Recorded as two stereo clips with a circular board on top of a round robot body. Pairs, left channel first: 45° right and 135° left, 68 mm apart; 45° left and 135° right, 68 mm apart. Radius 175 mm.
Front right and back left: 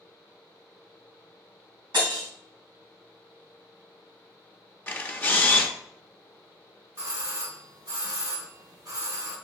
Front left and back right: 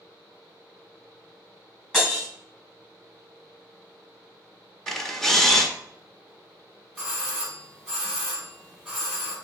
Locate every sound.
1.9 s breaking glass: 125° left, 2.5 m
4.9 s a camera shutter: 30° right, 1.1 m
7.0 s a doorbell: 135° left, 2.0 m